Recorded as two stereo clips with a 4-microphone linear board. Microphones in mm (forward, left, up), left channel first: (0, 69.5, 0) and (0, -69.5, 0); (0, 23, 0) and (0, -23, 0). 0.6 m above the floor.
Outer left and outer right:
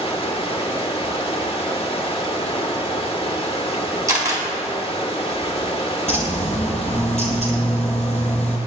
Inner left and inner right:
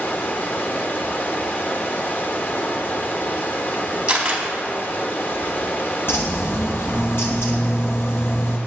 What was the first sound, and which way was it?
Running water, 40° left (ahead or behind).